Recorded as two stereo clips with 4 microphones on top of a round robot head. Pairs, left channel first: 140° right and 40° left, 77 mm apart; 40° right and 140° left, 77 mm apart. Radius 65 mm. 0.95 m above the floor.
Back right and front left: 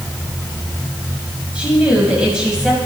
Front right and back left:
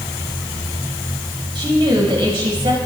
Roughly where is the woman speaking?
Behind left.